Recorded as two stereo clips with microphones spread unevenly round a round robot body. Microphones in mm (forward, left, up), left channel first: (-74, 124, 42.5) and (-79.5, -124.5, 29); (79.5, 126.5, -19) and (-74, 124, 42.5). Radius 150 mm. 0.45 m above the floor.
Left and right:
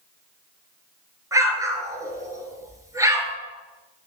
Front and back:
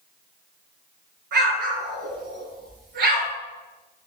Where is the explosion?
170° right, 2 m.